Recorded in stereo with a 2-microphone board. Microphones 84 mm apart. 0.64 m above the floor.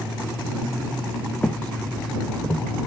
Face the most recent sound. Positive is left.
turn(degrees=5)  # may be behind; listen again after turning